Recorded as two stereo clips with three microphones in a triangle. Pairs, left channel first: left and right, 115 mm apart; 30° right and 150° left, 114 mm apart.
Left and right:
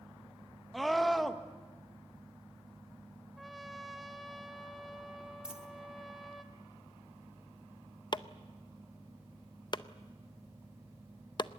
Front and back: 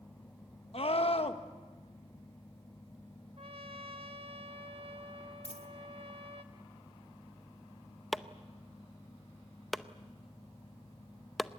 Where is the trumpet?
Straight behind, 1.2 m.